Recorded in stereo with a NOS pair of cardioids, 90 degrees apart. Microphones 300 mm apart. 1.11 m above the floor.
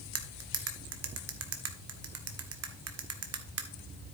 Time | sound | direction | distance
0.1 | cutlery clinking | 55° right | 1.5 m